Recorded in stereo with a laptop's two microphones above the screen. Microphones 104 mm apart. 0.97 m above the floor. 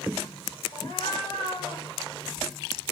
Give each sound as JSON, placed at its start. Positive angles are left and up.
{"t": 0.7, "sound": "a cat meowing", "side_deg": 55, "distance_m": 1.0}